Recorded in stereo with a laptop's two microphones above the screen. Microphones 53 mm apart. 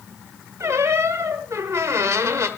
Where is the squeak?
60° right (ahead or behind), 1.3 m.